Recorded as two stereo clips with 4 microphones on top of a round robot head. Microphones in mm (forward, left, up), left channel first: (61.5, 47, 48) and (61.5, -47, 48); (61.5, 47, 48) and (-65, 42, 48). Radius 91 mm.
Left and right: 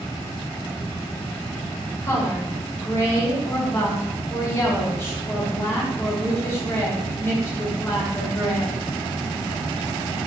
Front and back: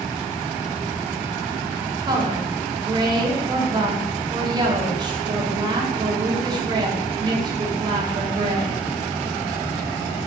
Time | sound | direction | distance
2.0 | a woman speaking | 140° left | 0.9 m